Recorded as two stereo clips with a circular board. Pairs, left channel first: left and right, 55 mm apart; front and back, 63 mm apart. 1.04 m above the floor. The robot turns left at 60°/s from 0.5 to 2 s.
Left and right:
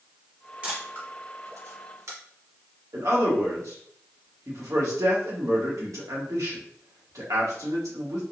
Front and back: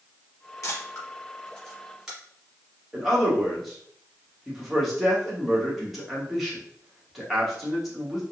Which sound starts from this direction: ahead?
A camera shutter, at 0.6 s.